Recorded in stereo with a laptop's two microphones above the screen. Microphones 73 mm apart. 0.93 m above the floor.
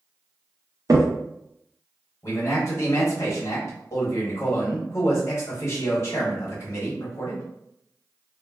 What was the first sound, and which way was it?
A crack, 50° right (ahead or behind).